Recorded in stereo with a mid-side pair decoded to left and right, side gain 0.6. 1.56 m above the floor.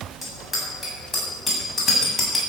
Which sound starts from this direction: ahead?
A bicycle bell, at 0.2 s.